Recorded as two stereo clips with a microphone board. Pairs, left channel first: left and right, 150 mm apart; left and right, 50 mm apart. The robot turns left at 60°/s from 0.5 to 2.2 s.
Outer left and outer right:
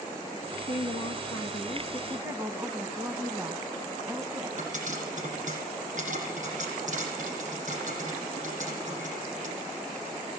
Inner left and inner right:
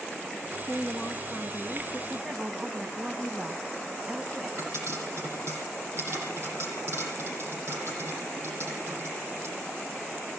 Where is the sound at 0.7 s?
85° left, 1.7 m; by 2.0 s 5° left, 1.7 m.